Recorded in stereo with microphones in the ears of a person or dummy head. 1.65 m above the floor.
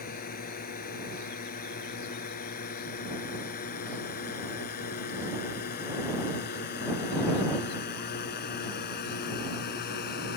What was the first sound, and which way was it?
A drone, 45° left (ahead or behind).